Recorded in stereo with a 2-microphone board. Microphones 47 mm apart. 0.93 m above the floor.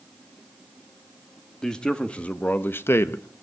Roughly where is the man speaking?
Centre.